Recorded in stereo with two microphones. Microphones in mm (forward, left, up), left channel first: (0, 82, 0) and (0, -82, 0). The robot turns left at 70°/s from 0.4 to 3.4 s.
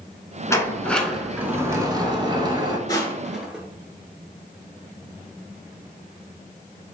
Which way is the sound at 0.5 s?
20° left (ahead or behind).